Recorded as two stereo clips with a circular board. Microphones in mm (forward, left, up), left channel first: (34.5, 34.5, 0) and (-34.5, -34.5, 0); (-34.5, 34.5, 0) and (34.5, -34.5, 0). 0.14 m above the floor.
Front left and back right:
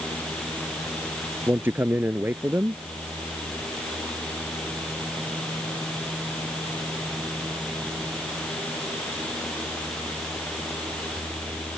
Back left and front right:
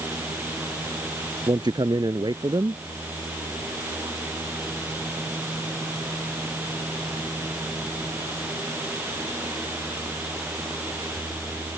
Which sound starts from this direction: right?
A man speaking, at 1.5 s.